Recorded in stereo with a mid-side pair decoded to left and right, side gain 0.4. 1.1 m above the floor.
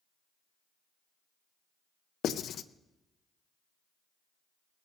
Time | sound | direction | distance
2.2 | writing | 70° left | 0.5 m